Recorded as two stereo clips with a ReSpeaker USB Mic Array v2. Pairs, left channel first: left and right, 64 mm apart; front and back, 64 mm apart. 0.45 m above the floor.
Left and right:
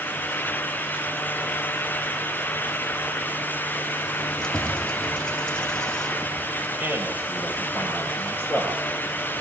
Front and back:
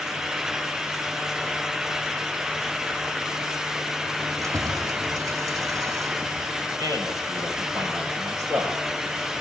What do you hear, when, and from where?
4.2 s keys jangling: 165° left, 2 m
6.8 s a man speaking: 150° right, 9.5 m